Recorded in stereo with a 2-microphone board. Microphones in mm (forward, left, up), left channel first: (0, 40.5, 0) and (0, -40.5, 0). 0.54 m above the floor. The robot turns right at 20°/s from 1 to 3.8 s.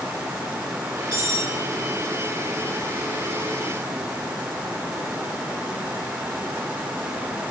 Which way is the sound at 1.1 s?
65° left (ahead or behind).